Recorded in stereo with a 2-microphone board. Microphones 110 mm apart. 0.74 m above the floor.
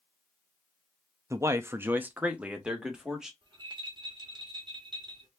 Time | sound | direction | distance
1.3 | a man speaking | 25° right (ahead or behind) | 0.5 m
3.4 | a rattle | 40° right (ahead or behind) | 1.5 m